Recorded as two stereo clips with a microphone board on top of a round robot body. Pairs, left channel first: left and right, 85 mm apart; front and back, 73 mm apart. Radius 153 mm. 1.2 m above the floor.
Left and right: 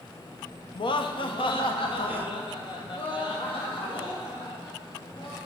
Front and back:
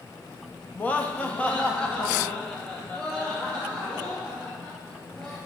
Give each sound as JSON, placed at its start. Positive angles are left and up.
{"t": 0.8, "sound": "laughter", "azimuth_deg": 70, "distance_m": 0.9}